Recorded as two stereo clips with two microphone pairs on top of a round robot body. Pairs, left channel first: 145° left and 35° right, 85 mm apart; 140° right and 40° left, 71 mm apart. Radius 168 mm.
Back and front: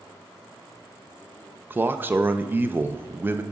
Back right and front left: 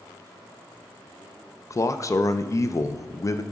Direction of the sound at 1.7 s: 100° right.